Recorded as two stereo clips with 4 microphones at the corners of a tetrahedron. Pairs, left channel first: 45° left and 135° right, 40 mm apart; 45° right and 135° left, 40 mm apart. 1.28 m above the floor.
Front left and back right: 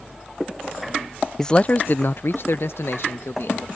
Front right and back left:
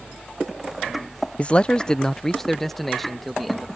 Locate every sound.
1.4 s a man speaking: 25° right; by 3.7 s 45° left